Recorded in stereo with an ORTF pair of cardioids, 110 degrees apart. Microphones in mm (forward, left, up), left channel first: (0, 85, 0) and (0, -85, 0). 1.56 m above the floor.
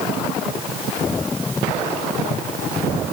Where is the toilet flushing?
No toilet flushing in this recording.